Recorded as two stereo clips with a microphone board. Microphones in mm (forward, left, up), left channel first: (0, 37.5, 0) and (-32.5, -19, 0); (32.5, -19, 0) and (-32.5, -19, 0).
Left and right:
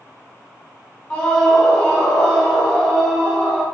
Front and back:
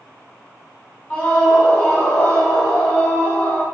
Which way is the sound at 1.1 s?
20° left.